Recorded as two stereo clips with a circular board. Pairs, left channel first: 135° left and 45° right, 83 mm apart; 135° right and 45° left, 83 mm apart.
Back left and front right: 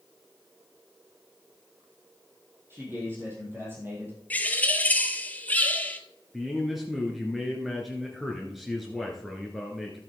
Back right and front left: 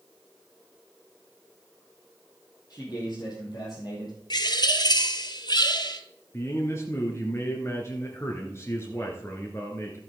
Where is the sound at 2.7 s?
105° right, 3.5 m.